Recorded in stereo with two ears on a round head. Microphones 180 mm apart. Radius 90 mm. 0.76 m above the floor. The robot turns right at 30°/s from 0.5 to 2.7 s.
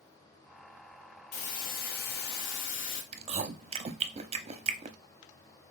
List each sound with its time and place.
1.3 s a hiss: 40° left, 1.0 m; by 3.0 s 80° left, 1.0 m
3.1 s chewing: 30° right (ahead or behind), 0.5 m